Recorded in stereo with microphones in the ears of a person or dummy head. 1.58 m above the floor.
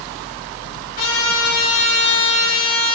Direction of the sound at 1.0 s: 80° left.